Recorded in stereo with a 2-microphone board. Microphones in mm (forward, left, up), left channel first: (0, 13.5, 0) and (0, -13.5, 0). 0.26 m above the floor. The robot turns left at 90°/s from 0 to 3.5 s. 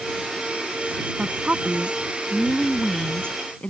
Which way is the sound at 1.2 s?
60° right.